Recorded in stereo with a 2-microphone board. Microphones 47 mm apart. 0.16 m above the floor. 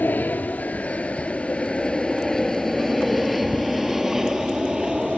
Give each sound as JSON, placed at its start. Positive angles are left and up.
{"t": 0.0, "sound": "an aircraft", "side_deg": 35}